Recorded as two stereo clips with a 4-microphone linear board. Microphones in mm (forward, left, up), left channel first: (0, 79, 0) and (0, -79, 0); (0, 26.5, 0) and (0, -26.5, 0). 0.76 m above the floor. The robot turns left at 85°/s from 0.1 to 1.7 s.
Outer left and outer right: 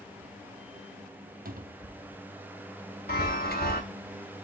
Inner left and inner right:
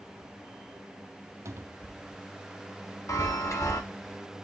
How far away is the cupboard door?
About 0.6 m.